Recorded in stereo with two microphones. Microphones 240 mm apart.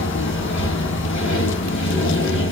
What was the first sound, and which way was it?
Running water, 55° left (ahead or behind).